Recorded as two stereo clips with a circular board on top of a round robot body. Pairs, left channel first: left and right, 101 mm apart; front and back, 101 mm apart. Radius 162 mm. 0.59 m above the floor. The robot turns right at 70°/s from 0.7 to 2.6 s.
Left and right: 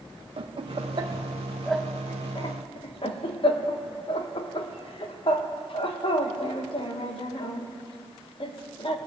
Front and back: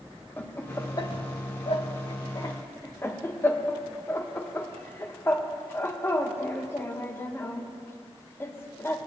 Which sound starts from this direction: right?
Laughter, at 0.4 s.